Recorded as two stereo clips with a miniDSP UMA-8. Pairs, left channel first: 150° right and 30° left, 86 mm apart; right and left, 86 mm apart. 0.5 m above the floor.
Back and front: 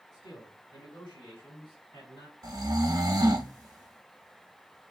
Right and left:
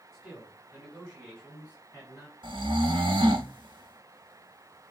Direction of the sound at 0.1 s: 175° right.